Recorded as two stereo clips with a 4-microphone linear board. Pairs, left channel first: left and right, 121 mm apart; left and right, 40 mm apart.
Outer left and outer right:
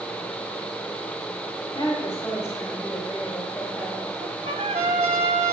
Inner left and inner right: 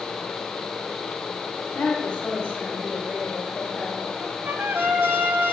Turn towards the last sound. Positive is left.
turn(degrees=-65)  # may be behind; listen again after turning